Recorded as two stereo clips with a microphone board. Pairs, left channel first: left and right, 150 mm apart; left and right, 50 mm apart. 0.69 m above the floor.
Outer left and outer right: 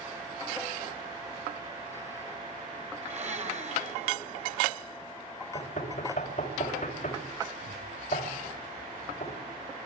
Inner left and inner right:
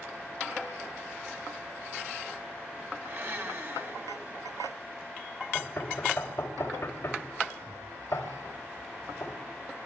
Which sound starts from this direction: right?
A blender, at 3.0 s.